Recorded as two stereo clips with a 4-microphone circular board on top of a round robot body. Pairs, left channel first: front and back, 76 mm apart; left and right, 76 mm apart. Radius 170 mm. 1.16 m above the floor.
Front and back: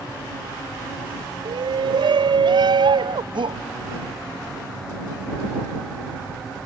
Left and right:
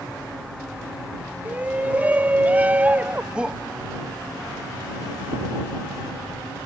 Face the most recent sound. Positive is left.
turn(degrees=-170)